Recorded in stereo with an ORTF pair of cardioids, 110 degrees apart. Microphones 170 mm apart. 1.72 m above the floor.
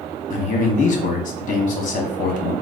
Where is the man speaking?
50° left, 1.2 m.